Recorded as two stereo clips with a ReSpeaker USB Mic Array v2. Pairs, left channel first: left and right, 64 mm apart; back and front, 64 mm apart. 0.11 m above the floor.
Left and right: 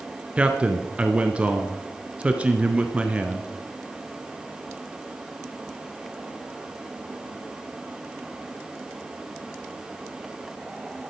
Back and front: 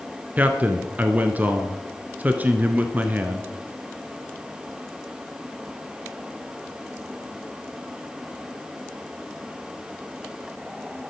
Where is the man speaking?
40° right, 1.4 m.